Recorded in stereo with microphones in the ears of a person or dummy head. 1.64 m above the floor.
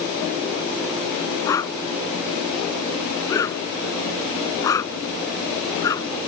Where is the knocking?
No knocking in this recording.